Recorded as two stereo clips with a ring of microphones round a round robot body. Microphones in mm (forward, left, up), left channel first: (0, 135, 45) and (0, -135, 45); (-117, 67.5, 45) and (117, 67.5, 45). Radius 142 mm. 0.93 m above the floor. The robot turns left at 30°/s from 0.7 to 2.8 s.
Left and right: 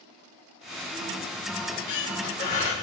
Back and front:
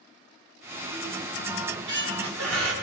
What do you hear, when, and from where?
1.6 s a squeak: 55° left, 2 m; by 2.7 s 20° left, 2 m